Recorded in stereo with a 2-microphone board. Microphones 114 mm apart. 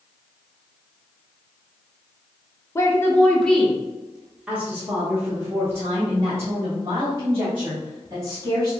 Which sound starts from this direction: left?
A woman speaking, at 2.8 s.